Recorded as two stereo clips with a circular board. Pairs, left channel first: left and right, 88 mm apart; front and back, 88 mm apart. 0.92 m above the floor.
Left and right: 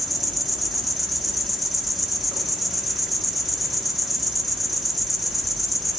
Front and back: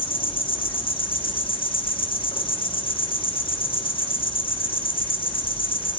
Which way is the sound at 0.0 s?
Straight ahead.